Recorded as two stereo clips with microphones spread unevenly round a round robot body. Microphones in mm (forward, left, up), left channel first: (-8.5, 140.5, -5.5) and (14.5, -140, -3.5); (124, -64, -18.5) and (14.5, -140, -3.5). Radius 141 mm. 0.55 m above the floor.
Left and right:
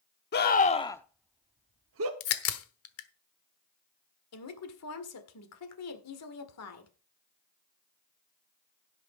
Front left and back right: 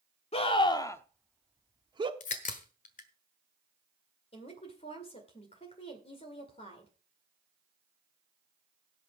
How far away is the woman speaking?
About 1.9 m.